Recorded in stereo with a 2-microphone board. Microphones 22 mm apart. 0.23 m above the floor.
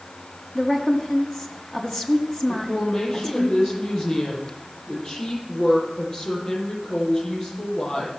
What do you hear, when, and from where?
0.6 s a woman speaking: 35° left (ahead or behind), 1.6 m
2.5 s a woman speaking: 35° left (ahead or behind), 8 m